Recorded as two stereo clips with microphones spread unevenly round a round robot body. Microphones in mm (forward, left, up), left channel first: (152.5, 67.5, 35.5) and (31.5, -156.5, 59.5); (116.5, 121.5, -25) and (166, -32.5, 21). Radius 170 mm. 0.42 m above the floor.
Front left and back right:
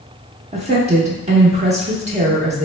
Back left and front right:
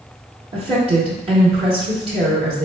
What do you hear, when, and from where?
0.5 s a woman speaking: 100° right, 0.7 m